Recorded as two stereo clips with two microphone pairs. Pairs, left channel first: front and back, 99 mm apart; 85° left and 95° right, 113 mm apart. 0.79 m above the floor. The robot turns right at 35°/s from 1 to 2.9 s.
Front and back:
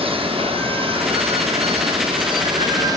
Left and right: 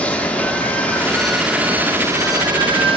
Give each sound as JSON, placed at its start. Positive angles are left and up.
{"t": 0.0, "sound": "running water", "azimuth_deg": 165, "distance_m": 0.9}